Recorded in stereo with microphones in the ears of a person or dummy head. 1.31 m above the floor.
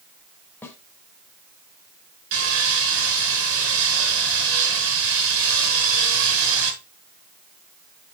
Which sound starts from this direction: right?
Sawing, at 2.3 s.